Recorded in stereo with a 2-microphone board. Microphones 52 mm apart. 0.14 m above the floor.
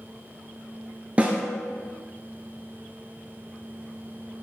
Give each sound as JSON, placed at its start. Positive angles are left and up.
{"t": 1.2, "sound": "a snare drum", "side_deg": -25, "distance_m": 0.6}